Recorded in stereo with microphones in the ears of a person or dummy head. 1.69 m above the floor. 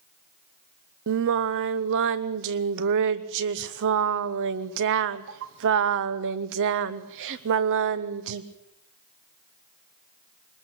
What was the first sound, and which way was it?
Singing, 65° right (ahead or behind).